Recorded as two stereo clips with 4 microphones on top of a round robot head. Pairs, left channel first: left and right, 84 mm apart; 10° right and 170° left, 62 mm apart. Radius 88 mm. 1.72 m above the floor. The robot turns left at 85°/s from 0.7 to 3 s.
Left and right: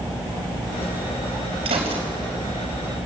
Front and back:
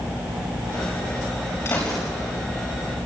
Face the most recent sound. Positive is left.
turn(degrees=180)